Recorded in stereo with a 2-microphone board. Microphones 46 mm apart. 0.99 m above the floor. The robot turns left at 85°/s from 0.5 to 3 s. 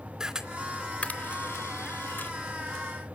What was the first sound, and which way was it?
A camera shutter, 15° right (ahead or behind).